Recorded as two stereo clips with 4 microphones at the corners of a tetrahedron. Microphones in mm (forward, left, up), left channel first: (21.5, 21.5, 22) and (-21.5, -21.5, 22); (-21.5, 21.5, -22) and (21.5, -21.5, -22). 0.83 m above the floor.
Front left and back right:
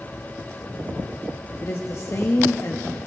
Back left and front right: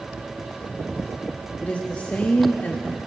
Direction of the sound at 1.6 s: 75° left.